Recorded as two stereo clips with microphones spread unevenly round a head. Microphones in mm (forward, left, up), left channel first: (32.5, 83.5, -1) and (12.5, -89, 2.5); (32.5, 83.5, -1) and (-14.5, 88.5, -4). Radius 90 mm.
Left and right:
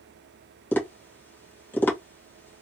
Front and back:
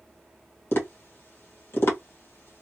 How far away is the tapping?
About 1.2 m.